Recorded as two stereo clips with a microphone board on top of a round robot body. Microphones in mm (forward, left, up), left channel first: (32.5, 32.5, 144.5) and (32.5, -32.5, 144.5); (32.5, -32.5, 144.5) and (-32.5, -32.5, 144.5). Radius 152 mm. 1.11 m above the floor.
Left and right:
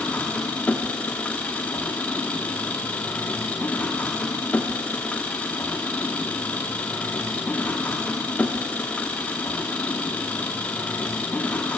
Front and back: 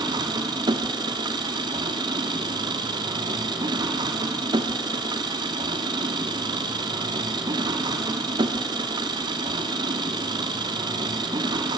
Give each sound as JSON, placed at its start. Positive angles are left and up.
{"t": 0.0, "sound": "an engine running", "azimuth_deg": 165, "distance_m": 0.9}